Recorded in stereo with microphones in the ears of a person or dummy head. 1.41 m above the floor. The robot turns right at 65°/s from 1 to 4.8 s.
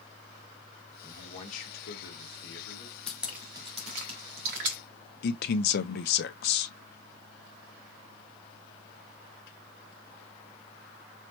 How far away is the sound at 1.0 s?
About 2.5 m.